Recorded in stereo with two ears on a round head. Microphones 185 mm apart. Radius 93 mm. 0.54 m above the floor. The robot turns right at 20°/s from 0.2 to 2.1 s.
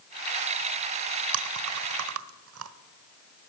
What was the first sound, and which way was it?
Chewing, 80° right.